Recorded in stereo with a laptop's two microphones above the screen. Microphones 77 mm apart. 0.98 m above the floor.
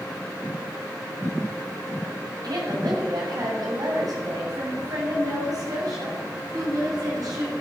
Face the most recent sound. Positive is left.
turn(degrees=-55)  # may be behind; listen again after turning